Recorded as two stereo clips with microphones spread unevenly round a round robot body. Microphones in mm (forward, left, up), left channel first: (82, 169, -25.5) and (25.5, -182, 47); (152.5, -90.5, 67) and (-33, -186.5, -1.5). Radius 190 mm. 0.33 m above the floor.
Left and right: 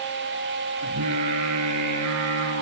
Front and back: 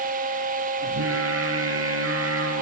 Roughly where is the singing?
Behind right.